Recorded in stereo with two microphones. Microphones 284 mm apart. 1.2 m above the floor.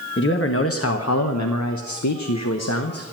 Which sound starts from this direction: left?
A man speaking, at 0.2 s.